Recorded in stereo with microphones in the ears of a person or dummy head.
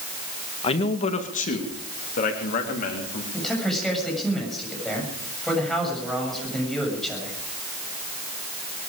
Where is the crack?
I don't hear a crack.